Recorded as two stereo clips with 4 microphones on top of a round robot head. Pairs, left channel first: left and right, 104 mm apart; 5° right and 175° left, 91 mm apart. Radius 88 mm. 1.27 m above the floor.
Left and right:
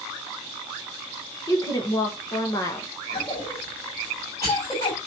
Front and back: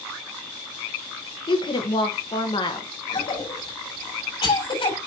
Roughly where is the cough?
Ahead.